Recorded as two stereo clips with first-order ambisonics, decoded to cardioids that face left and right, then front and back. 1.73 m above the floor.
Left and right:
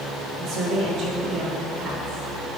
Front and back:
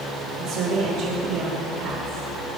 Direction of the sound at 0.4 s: 140° right.